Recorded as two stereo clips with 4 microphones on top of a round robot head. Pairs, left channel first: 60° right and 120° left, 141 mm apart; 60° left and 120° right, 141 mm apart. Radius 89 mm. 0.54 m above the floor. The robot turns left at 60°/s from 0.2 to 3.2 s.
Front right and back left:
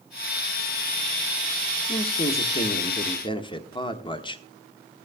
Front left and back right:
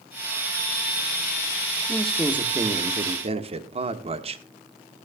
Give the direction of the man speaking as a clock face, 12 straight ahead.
1 o'clock.